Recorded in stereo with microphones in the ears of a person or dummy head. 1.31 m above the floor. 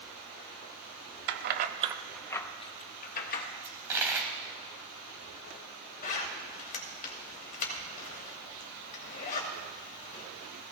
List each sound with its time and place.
1.3 s keys jangling: 60° right (ahead or behind), 0.9 m; by 3.5 s 50° left (ahead or behind), 1.5 m
3.6 s a dropped coin: 15° right (ahead or behind), 2 m
6.0 s a zipper: 45° left (ahead or behind), 2.5 m